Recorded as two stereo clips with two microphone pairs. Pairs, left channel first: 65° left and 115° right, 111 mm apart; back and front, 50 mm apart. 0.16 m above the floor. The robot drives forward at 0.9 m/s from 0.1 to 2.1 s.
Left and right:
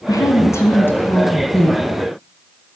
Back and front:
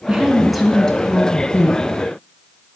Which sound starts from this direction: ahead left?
A woman speaking, at 0.1 s.